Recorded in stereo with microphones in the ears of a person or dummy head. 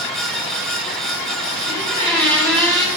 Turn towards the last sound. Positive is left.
turn(degrees=5)  # may be behind; listen again after turning